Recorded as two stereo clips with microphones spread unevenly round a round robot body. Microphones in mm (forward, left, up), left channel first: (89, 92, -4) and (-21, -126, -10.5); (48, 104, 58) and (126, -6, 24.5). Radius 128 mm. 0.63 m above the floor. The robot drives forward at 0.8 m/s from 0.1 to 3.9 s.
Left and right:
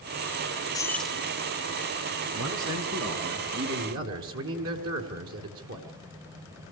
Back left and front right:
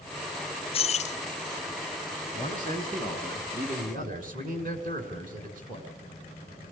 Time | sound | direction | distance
0.7 | keys jangling | 120° left | 0.5 m
2.3 | a man speaking | 155° right | 5 m